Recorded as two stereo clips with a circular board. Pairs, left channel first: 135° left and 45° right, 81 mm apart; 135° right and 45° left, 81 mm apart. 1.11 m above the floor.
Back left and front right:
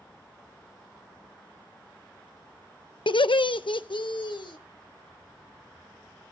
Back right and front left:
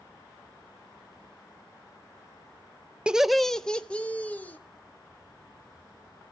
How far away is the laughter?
About 0.5 m.